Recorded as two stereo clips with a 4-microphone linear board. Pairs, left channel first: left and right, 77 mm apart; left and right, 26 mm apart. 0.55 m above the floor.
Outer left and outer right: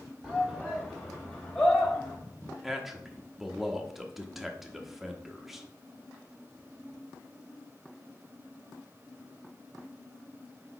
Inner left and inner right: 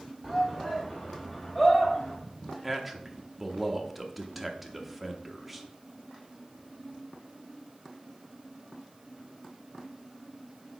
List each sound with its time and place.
0.2 s a shout: 5° left (ahead or behind), 1.3 m; by 2.2 s 30° left (ahead or behind), 2.5 m
2.6 s a man speaking: 5° right (ahead or behind), 0.8 m